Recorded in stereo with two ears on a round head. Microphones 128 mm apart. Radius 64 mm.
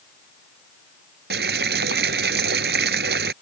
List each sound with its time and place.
1.3 s boiling: 80° right